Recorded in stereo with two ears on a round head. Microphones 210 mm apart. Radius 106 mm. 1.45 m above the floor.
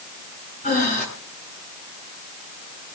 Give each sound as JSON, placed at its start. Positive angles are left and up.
{"t": 0.6, "sound": "breathing", "side_deg": 35, "distance_m": 7.0}